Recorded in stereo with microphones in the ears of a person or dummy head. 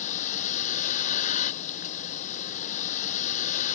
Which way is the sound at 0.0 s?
40° left (ahead or behind).